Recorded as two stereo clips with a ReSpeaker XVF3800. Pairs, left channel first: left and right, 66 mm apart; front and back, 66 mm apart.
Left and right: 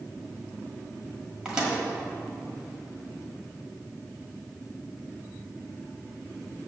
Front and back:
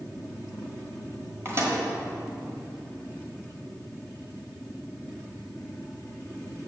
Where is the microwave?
160° right, 1.5 m.